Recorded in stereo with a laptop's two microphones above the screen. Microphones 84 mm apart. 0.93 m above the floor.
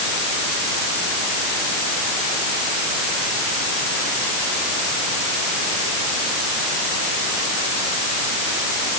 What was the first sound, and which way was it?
Only background noise.